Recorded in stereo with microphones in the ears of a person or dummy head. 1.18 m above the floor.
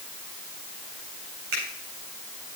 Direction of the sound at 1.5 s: 70° right (ahead or behind).